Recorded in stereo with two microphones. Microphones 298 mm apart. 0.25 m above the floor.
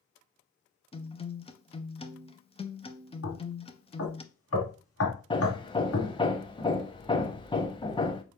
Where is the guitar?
20° left (ahead or behind), 0.5 m.